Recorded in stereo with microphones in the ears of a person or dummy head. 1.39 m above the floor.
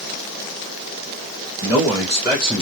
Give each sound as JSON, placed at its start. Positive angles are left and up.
{"t": 1.6, "sound": "a man speaking", "side_deg": 5, "distance_m": 1.3}